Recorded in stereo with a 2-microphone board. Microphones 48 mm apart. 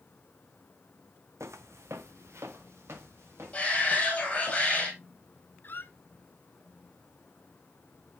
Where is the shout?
25° left (ahead or behind), 2.5 m.